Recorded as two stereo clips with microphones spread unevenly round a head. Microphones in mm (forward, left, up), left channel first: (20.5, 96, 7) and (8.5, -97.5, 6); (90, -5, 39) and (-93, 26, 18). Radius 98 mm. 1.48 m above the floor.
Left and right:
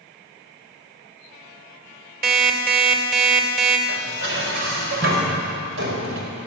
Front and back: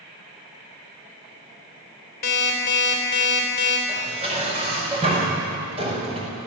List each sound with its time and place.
2.2 s an alarm clock: 50° right, 3.5 m
3.9 s dishes clattering: 125° right, 5 m